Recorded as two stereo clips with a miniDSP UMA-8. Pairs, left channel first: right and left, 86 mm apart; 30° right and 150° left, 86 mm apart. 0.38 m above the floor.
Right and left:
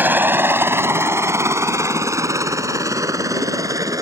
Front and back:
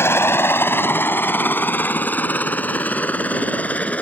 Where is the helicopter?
25° left; by 4.0 s 45° left.